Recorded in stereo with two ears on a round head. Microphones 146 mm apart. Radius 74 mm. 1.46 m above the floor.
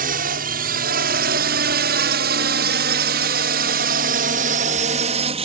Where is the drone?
60° right (ahead or behind); by 5.5 s 35° right (ahead or behind).